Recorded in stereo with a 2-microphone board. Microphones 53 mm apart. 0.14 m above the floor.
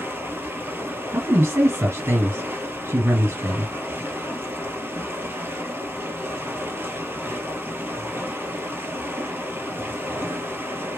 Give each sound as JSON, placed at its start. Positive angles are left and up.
{"t": 0.0, "sound": "running water", "side_deg": -40, "distance_m": 1.1}
{"t": 1.1, "sound": "a man speaking", "side_deg": -50, "distance_m": 2.0}